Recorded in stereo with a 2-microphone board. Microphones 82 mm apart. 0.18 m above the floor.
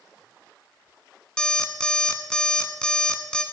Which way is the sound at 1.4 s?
10° left (ahead or behind).